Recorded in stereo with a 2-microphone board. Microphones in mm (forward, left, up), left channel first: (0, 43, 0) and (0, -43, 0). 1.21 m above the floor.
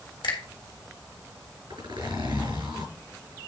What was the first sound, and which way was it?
A finger snap, 90° left.